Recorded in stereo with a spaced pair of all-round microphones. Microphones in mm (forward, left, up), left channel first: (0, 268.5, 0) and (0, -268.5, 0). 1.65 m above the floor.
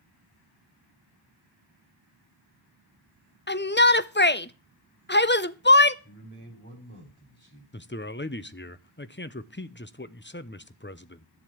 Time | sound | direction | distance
3.5 | a shout | 20° left (ahead or behind) | 0.6 m
6.0 | a man speaking | 20° left (ahead or behind) | 6 m
7.7 | a man speaking | 20° left (ahead or behind) | 0.7 m